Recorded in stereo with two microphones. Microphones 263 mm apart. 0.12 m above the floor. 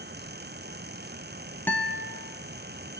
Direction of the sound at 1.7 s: 5° left (ahead or behind).